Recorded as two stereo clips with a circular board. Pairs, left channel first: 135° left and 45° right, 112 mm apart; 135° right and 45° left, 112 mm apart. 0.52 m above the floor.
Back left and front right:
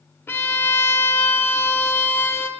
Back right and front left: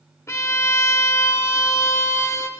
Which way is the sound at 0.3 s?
170° right.